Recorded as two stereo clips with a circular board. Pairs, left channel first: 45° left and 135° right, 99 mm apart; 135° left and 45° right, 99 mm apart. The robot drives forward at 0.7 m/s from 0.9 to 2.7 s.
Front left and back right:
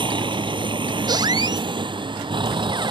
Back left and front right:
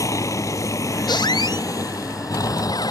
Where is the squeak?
Straight behind.